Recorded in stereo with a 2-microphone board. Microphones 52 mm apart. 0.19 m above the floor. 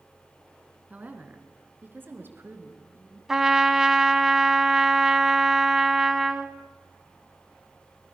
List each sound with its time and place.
0.9 s a woman speaking: 30° right (ahead or behind), 2.5 m; by 3.2 s 45° right (ahead or behind), 3.5 m
3.3 s a trumpet: 10° right (ahead or behind), 1.0 m